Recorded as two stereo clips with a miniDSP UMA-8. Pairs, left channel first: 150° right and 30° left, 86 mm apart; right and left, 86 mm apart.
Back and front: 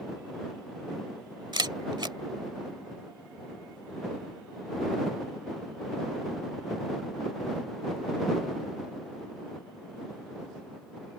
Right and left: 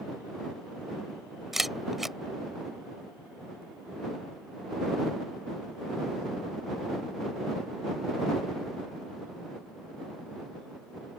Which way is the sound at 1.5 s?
Straight ahead.